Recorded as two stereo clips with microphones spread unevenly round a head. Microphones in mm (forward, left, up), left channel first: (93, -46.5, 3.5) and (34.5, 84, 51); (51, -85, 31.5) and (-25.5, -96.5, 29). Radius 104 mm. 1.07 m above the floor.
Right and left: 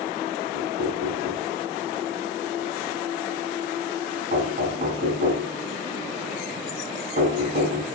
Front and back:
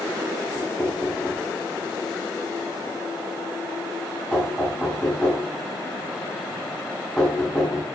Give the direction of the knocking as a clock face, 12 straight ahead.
9 o'clock.